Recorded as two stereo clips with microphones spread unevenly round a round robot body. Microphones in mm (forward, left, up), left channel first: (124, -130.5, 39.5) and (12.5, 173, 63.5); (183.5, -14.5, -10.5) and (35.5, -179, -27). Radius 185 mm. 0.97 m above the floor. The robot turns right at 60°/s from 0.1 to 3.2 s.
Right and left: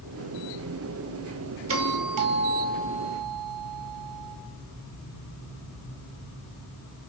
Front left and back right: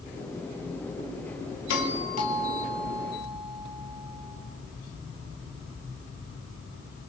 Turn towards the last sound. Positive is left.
turn(degrees=150)